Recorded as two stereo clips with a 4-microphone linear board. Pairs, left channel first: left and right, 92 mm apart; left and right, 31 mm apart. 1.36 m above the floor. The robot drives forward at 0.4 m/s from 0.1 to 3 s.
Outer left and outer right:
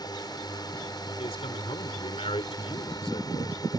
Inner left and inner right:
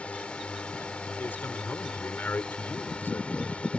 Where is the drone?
45° left (ahead or behind).